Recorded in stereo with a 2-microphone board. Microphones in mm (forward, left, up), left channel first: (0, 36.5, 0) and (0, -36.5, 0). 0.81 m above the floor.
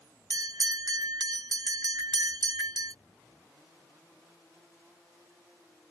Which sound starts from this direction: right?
A bell, at 0.3 s.